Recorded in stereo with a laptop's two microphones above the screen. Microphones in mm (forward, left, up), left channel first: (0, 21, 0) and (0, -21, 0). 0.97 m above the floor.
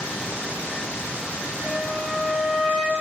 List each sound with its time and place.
1.6 s a flute: centre (ahead or behind), 2 m